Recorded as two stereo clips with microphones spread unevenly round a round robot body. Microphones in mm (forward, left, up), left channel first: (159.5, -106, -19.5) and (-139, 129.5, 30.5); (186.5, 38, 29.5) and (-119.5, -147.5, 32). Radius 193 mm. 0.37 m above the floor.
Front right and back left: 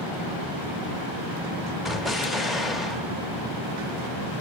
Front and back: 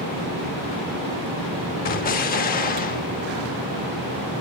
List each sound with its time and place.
1.9 s an explosion: 35° left, 0.5 m